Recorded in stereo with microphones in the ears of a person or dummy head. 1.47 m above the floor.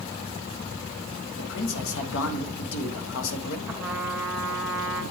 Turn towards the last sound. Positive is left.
turn(degrees=-10)  # may be behind; listen again after turning